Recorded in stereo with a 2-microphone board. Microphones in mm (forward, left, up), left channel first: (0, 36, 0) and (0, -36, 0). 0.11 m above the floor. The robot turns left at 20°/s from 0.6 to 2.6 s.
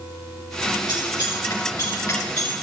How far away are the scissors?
About 3.5 m.